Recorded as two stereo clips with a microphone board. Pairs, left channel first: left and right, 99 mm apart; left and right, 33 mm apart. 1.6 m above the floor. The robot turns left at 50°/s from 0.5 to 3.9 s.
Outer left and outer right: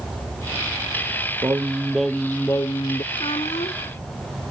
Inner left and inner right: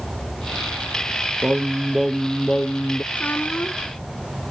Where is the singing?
150° right; by 3.0 s 130° left.